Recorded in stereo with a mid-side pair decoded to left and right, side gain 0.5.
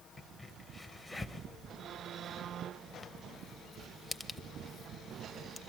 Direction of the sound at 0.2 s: 25° left.